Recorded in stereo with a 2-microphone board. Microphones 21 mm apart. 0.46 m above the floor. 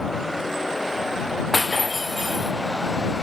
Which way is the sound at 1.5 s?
15° left (ahead or behind).